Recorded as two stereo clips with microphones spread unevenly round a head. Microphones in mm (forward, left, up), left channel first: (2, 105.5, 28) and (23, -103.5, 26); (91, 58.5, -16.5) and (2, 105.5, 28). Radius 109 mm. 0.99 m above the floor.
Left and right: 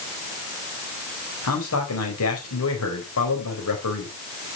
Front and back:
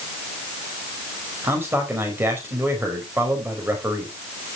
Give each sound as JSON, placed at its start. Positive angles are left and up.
{"t": 1.4, "sound": "a man speaking", "azimuth_deg": 85, "distance_m": 4.5}